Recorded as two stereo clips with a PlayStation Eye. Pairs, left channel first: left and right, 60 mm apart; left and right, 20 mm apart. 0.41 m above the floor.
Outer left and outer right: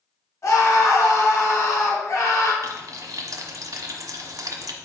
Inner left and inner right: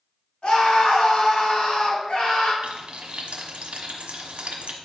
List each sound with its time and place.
0.4 s a scream: 55° left (ahead or behind), 3 m
2.6 s frying: 80° right, 1.2 m